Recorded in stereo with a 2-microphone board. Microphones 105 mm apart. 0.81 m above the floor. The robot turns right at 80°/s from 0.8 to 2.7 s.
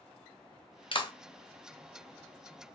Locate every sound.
0.9 s a clap: 55° left (ahead or behind), 0.5 m; by 1.1 s 40° left (ahead or behind), 0.5 m